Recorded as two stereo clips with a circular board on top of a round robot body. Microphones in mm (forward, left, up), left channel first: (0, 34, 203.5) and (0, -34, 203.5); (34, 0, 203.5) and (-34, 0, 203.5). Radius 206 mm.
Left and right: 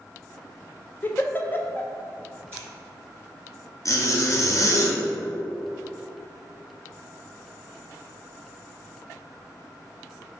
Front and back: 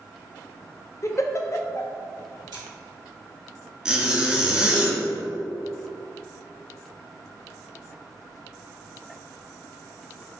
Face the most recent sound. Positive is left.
turn(degrees=105)